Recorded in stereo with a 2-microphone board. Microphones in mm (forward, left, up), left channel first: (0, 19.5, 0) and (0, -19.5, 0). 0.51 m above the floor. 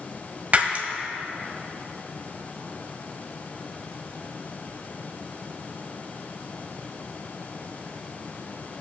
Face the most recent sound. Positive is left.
turn(degrees=-40)  # may be behind; listen again after turning